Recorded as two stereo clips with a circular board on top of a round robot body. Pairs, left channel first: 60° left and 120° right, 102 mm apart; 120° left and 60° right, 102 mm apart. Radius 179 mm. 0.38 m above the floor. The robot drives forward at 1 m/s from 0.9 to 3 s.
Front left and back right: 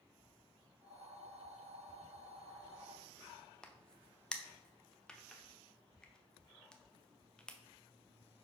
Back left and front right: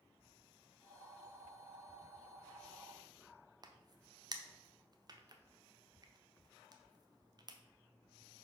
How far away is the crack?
About 1.0 m.